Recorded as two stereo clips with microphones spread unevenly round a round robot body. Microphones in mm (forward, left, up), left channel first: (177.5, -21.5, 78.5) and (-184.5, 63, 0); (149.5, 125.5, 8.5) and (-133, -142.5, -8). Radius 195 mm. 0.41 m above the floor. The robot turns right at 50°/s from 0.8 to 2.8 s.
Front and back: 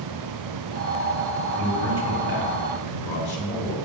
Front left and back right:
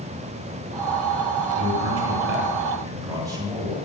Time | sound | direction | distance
1.6 | a man speaking | 120° right | 2 m